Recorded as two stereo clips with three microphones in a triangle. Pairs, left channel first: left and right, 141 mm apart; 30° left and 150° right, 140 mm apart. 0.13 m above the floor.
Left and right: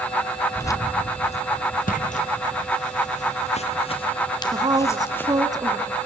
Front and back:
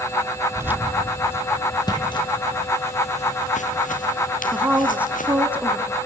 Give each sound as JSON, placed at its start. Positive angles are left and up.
{"t": 0.6, "sound": "keys jangling", "azimuth_deg": 155, "distance_m": 1.0}
{"t": 1.9, "sound": "footsteps", "azimuth_deg": 90, "distance_m": 3.5}
{"t": 4.5, "sound": "a woman speaking", "azimuth_deg": -80, "distance_m": 1.7}